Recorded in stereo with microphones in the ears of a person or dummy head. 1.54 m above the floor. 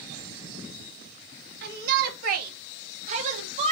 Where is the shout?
55° right (ahead or behind), 2.5 m; by 3.7 s 35° right (ahead or behind), 2.5 m.